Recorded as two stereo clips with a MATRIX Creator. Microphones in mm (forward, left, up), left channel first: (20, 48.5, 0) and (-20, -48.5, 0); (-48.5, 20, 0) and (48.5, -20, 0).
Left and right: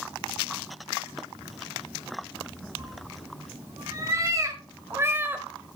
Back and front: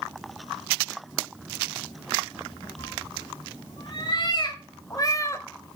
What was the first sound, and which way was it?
A cat meowing, 165° right.